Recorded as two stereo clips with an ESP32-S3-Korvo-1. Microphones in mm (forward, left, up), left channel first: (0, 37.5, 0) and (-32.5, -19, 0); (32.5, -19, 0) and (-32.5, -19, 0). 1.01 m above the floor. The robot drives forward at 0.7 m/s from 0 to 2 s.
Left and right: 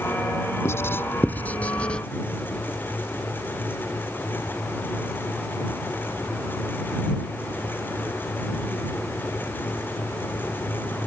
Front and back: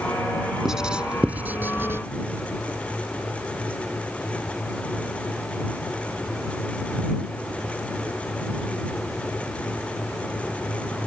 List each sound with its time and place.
0.7 s writing: 100° left; by 2.0 s 135° left